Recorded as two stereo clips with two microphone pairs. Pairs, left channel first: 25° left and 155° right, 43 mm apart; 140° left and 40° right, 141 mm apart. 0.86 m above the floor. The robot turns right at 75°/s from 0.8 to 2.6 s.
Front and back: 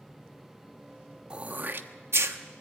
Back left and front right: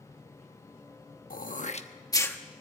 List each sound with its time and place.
1.3 s throat clearing: 145° left, 1.0 m; by 2.4 s 135° right, 1.0 m